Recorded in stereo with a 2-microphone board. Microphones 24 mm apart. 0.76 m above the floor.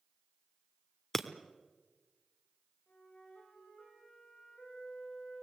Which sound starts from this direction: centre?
Breaking glass, at 1.1 s.